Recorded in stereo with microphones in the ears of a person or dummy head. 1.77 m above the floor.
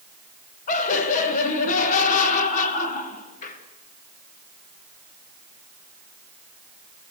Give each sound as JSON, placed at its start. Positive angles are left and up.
{"t": 0.7, "sound": "laughter", "side_deg": 50, "distance_m": 2.5}